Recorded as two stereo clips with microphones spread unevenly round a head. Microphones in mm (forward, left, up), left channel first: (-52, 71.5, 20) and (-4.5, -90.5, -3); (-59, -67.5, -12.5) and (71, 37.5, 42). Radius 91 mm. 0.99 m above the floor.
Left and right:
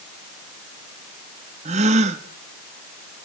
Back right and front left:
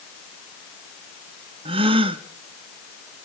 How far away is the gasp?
About 1.1 m.